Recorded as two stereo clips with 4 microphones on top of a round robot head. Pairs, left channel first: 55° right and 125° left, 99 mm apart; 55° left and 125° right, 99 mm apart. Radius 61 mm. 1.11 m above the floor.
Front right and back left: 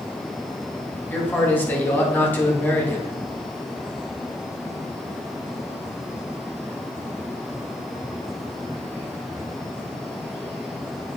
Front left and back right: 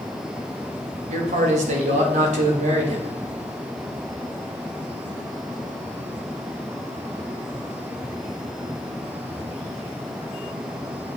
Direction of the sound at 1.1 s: 130° right.